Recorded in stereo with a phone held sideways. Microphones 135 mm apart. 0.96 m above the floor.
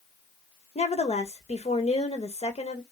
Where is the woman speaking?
55° left (ahead or behind), 1.1 m.